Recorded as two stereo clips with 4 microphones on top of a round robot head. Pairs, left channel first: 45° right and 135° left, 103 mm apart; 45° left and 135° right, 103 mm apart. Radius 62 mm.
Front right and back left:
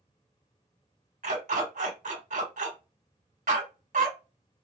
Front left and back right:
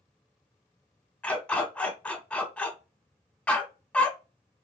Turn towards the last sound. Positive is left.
turn(degrees=120)